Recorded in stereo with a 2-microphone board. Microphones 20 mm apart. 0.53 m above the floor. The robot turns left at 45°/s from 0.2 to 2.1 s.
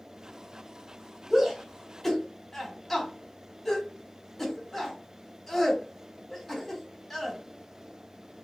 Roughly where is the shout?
Centre.